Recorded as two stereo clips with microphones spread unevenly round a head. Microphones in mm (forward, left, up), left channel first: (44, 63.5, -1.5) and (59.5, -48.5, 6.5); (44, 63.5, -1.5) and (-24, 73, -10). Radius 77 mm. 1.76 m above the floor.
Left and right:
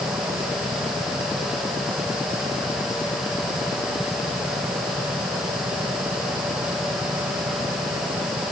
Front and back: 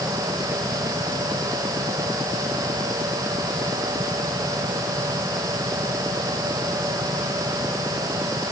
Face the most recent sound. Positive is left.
No sound to turn to.